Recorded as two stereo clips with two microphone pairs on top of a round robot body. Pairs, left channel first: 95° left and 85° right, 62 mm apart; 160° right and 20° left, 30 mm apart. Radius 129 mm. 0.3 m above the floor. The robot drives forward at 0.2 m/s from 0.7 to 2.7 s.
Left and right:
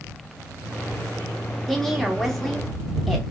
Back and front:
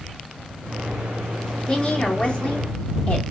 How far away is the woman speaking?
About 0.9 m.